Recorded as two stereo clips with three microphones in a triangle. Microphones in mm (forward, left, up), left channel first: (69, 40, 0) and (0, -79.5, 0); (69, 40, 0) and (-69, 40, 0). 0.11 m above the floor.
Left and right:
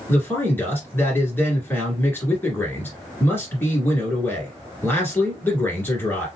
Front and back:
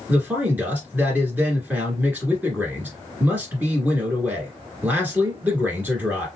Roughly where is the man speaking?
Behind left.